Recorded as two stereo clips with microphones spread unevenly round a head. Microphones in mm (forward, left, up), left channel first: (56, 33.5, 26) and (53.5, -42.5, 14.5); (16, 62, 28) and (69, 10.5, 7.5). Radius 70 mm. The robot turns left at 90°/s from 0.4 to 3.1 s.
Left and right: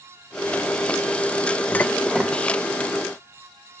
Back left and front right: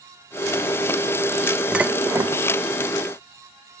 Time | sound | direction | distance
1.7 | dishes clattering | 45° left | 0.6 m